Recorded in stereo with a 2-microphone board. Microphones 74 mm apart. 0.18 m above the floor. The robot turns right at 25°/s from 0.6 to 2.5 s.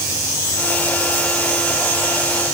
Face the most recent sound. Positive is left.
No sound to turn to.